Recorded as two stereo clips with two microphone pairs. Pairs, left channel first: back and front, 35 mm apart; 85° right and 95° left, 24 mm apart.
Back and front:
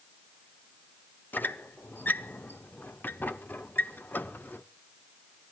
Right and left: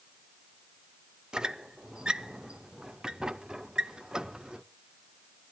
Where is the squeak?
155° left, 0.6 m.